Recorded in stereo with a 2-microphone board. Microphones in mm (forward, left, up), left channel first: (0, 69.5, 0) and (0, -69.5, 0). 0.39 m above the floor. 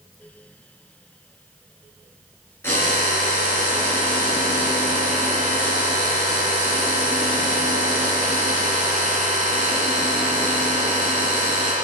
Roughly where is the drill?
Centre.